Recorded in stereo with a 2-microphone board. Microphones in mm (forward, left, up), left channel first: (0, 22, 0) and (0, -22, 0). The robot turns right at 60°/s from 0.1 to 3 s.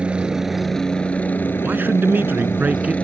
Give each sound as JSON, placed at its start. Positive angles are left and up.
{"t": 0.0, "sound": "a helicopter", "azimuth_deg": -25}
{"t": 1.6, "sound": "a man speaking", "azimuth_deg": -120}